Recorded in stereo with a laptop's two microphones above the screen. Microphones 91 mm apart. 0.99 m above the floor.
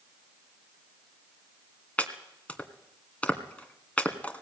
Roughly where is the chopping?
Centre.